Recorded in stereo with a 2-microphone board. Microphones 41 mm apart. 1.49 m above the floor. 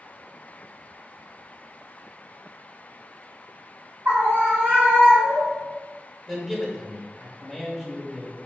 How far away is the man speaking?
About 1.1 m.